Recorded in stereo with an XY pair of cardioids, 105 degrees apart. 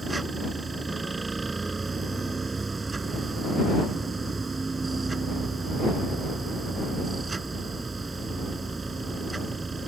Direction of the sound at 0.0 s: 25° right.